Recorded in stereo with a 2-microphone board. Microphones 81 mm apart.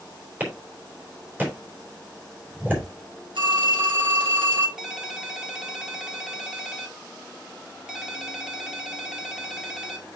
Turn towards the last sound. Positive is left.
turn(degrees=-10)  # may be behind; listen again after turning